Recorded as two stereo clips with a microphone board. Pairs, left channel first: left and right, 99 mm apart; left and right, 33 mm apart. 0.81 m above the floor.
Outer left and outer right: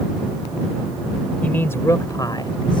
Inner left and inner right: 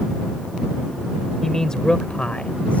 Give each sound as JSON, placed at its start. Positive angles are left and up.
{"t": 1.4, "sound": "a man speaking", "side_deg": 15}